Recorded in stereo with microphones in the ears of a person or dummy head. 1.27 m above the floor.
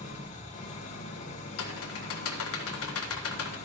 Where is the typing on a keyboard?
70° left (ahead or behind), 1.5 m.